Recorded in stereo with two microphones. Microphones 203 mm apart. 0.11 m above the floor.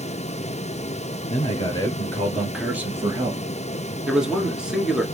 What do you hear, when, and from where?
1.3 s a man speaking: 30° left (ahead or behind), 1.6 m; by 3.4 s 20° right (ahead or behind), 1.8 m
4.1 s a man speaking: 5° right (ahead or behind), 1.3 m